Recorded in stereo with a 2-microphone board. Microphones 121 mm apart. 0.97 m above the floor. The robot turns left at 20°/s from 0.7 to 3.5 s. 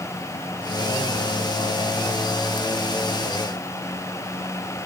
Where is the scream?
I don't hear a scream.